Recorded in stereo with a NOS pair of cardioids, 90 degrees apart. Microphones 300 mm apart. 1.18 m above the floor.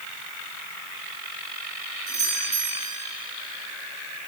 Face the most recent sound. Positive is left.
turn(degrees=-30)